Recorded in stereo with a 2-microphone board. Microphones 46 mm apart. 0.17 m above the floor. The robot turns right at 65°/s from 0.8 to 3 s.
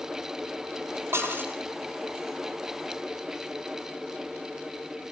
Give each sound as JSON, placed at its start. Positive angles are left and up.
{"t": 1.1, "sound": "dishes clattering", "azimuth_deg": -65, "distance_m": 3.5}